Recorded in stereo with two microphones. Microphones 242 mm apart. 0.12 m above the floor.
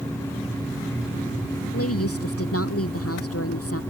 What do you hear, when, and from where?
1.7 s a woman speaking: 75° left (ahead or behind)